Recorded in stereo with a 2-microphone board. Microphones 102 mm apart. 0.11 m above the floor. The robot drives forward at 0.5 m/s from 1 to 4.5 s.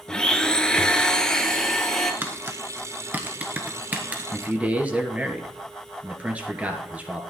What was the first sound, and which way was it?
A blender, 10° left (ahead or behind).